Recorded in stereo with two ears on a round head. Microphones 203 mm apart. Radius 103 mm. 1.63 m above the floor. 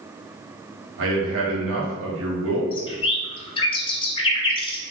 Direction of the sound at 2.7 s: 20° left (ahead or behind).